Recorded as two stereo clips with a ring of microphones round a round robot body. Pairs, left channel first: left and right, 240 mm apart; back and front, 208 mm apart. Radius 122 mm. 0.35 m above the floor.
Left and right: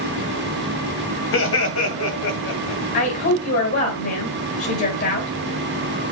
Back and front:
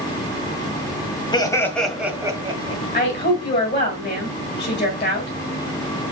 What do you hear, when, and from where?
1.3 s laughter: 115° left, 2 m; by 2.8 s 55° left, 2.5 m
2.9 s a woman speaking: 130° left, 2.5 m